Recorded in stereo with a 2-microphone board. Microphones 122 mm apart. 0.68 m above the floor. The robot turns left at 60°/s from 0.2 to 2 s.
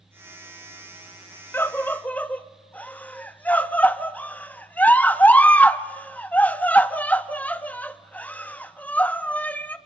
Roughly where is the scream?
Centre.